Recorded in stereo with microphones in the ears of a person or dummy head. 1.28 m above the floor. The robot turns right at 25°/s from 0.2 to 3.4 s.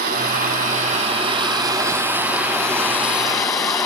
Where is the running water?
55° right, 3.5 m; by 3.9 s 25° left, 3.5 m.